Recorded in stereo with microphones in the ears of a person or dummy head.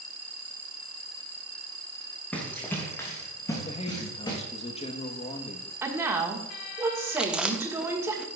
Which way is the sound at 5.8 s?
25° right (ahead or behind).